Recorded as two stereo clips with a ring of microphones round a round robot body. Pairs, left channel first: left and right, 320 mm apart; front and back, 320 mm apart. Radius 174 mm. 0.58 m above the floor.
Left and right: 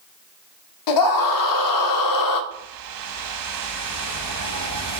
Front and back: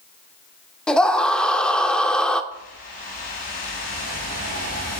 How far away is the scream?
About 1.1 m.